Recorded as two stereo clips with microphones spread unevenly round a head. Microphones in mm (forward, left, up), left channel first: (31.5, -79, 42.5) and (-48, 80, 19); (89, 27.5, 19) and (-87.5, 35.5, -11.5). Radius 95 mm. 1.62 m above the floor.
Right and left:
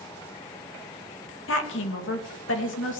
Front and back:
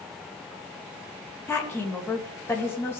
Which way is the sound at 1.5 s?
80° right.